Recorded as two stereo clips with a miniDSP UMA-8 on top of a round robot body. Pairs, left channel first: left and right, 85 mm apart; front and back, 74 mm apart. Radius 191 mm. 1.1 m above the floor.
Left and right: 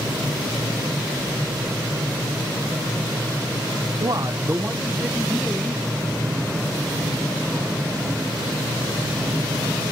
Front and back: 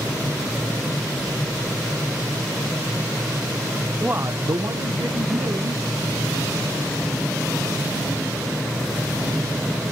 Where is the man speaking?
105° right, 0.7 m; by 7.0 s 175° left, 3.5 m.